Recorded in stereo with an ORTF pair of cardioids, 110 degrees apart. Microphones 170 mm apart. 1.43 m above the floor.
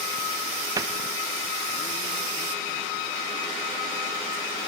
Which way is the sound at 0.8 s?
20° right.